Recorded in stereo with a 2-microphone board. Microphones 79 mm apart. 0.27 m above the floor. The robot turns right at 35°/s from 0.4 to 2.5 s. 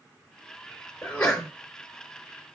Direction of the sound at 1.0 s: 20° left (ahead or behind).